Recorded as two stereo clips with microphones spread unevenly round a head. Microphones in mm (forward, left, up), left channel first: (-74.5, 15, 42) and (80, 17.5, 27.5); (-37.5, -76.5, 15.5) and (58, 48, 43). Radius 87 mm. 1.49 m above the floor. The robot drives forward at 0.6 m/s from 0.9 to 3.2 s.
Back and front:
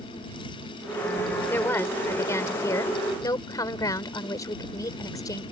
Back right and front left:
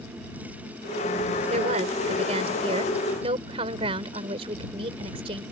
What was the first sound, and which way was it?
A woman speaking, 105° left.